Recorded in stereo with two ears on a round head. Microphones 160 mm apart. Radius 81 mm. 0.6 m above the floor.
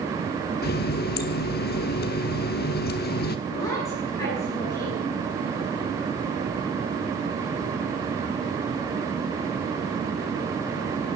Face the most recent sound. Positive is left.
turn(degrees=20)  # may be behind; listen again after turning